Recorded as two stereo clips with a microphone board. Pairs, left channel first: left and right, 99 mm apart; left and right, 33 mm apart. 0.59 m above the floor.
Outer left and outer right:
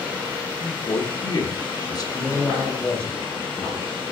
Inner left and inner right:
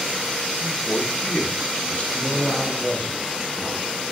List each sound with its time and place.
0.6 s a man speaking: 40° left (ahead or behind), 1.3 m
2.1 s a man speaking: 10° left (ahead or behind), 3.5 m